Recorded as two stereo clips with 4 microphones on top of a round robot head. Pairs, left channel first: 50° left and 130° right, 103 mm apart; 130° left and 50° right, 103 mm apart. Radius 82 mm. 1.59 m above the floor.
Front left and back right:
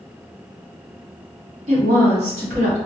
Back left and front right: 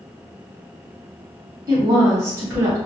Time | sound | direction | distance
1.7 | a woman speaking | 115° right | 1.1 m